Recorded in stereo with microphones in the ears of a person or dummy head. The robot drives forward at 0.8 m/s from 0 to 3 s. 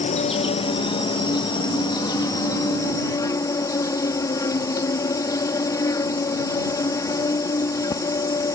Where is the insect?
35° left (ahead or behind); by 8.6 s 15° left (ahead or behind).